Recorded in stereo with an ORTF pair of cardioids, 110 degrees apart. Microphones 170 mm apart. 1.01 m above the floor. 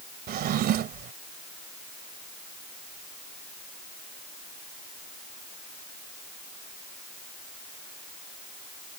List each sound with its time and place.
0.3 s a drawer: 65° right